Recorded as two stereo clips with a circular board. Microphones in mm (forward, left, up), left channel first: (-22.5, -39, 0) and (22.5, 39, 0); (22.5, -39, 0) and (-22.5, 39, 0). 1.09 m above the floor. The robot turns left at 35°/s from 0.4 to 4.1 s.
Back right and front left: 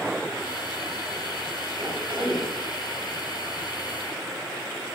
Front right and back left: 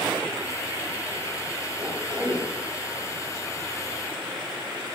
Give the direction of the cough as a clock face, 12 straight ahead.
9 o'clock.